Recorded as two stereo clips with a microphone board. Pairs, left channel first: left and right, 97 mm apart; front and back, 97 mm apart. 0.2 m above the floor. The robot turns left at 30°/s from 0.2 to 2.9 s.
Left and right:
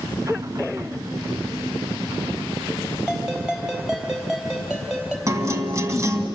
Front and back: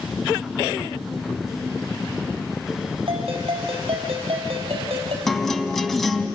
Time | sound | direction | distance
3.1 | a ringtone | 175° right | 4 m
5.3 | a guitar | 85° right | 1.7 m